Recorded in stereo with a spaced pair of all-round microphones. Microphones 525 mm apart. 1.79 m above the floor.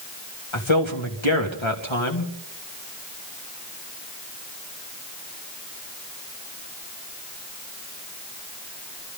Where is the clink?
No clink in this recording.